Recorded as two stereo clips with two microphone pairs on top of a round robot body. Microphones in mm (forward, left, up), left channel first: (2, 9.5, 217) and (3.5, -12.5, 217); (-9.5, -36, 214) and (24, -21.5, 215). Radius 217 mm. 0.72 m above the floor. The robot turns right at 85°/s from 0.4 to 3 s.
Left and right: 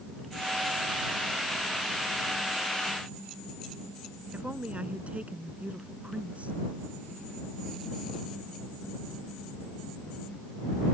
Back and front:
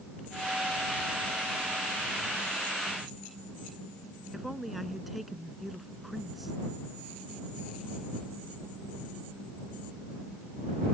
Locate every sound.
4.3 s a woman speaking: 60° right